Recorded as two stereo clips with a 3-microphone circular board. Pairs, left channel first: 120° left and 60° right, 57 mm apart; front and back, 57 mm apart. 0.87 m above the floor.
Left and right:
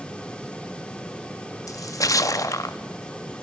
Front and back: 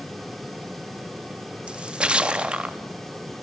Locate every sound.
1.7 s a splash: 110° left, 0.5 m